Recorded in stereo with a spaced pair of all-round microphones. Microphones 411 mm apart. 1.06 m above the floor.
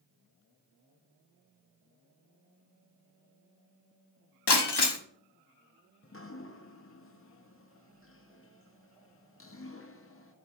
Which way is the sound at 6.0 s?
35° left (ahead or behind).